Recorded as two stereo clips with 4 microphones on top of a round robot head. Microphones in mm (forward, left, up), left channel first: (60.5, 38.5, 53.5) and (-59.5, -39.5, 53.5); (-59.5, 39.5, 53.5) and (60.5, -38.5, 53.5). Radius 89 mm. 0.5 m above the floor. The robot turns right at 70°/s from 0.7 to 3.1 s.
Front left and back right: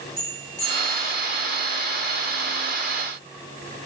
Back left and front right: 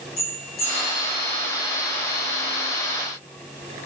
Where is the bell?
150° left, 5 m; by 1.1 s straight behind, 5 m.